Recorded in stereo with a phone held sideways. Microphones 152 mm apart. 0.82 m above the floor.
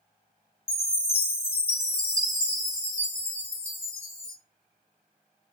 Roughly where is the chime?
Left.